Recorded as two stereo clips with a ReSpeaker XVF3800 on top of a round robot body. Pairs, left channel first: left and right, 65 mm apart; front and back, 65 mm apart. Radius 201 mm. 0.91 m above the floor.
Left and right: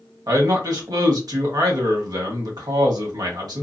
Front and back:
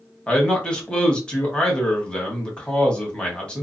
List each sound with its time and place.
0.3 s a man speaking: 75° right, 1.4 m